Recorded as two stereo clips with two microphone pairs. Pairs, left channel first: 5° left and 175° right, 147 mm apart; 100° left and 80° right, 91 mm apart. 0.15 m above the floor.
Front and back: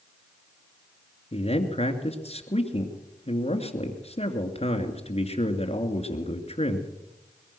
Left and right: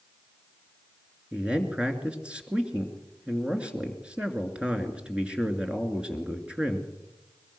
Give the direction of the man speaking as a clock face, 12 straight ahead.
12 o'clock.